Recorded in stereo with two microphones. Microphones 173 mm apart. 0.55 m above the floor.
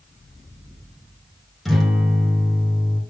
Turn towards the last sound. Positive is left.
turn(degrees=0)  # may be behind; listen again after turning